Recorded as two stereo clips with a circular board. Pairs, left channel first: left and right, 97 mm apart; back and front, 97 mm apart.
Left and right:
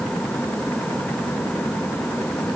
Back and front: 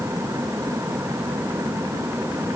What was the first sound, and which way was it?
Only background noise.